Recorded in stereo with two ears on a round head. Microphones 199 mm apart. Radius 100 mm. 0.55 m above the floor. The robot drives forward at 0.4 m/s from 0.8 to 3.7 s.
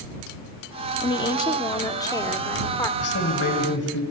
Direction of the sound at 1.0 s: 20° left (ahead or behind).